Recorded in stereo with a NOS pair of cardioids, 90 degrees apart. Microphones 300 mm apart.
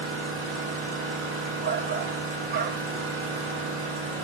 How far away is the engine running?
About 0.9 m.